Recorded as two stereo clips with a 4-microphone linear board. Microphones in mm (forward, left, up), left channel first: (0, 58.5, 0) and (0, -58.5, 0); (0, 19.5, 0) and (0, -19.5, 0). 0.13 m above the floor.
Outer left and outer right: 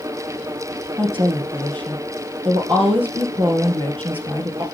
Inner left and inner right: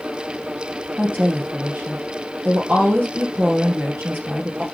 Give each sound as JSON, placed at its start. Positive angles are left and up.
{"t": 1.0, "sound": "a woman speaking", "side_deg": -50, "distance_m": 2.5}